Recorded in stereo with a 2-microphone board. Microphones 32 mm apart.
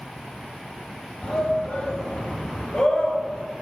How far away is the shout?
About 3 m.